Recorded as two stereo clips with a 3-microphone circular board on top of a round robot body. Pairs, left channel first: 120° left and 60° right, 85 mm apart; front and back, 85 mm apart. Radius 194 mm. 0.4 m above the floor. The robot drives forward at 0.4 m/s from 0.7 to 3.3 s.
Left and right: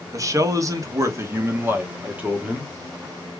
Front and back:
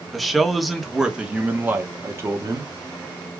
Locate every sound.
0.1 s a man speaking: 90° right, 1.2 m; by 2.7 s 135° right, 1.4 m